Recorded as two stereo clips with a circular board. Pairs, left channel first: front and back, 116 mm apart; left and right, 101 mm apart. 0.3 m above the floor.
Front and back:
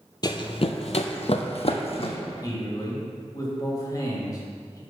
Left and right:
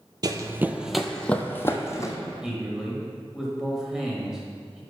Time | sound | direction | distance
0.2 | running footsteps | 45° right | 0.5 m
2.4 | a man speaking | 10° right | 1.5 m